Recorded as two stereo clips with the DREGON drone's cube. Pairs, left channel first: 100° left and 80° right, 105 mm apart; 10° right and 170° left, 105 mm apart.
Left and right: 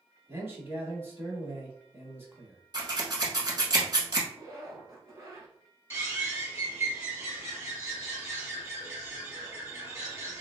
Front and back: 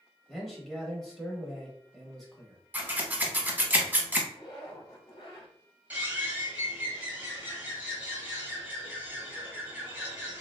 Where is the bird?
125° right, 1.2 m.